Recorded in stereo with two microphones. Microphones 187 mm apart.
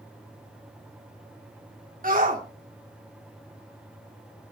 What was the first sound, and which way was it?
A shout, 50° right (ahead or behind).